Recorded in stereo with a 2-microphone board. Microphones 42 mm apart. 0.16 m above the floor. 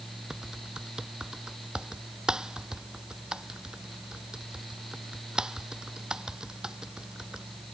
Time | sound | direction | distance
0.3 | typing on a keyboard | 20° right (ahead or behind) | ?